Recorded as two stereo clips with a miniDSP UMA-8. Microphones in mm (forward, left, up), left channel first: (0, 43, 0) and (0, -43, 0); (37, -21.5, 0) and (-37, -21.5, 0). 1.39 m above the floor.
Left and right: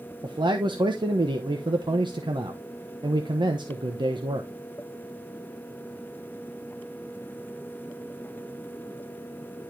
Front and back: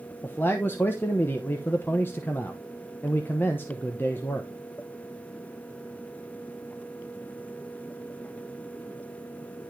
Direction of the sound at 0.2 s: 60° right.